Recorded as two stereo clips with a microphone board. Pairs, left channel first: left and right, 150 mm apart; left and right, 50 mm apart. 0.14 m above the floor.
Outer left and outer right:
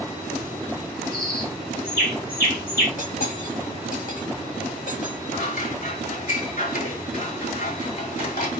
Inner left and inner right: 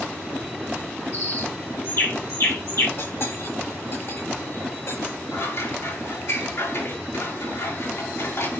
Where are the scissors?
75° left (ahead or behind), 5.5 m.